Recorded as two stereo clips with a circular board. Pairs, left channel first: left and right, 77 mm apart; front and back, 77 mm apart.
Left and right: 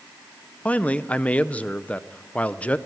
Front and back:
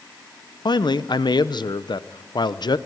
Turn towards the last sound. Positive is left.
turn(degrees=15)